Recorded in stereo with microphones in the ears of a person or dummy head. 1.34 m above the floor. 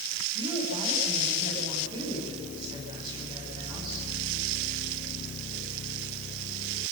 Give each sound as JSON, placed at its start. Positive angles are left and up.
{"t": 0.3, "sound": "a woman speaking", "side_deg": -25, "distance_m": 9.5}